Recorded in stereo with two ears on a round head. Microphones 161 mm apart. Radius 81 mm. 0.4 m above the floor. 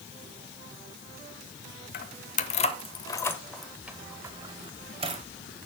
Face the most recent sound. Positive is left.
turn(degrees=-35)  # may be behind; listen again after turning